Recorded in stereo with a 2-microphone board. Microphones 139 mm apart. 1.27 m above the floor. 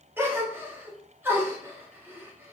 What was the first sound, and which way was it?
A gasp, 15° right (ahead or behind).